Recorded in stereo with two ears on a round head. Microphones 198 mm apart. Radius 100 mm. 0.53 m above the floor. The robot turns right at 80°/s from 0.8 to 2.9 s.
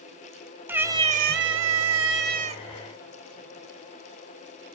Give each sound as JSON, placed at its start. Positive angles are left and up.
{"t": 0.7, "sound": "a cat meowing", "azimuth_deg": -170, "distance_m": 0.6}